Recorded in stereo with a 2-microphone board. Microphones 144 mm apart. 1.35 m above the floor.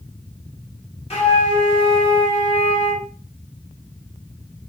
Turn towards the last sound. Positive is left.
turn(degrees=45)  # may be behind; listen again after turning